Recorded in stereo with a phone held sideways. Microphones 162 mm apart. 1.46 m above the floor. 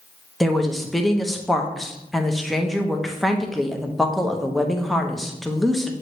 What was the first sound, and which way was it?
A woman speaking, centre (ahead or behind).